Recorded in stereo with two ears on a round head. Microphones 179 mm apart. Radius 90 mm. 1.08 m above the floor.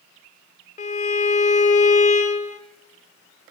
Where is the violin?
35° left (ahead or behind), 0.9 m.